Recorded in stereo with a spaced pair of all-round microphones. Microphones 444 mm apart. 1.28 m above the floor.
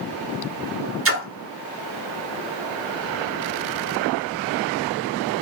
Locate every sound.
1.1 s a splash: 30° right (ahead or behind), 0.8 m